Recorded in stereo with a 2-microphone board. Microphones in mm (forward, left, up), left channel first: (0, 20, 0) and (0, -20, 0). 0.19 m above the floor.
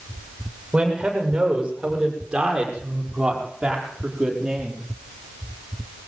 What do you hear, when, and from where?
0.7 s a man speaking: 15° right (ahead or behind), 8.5 m; by 4.8 s 10° right (ahead or behind), 6.5 m